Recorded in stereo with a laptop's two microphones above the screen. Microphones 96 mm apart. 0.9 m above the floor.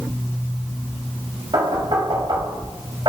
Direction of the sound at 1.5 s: 50° right (ahead or behind).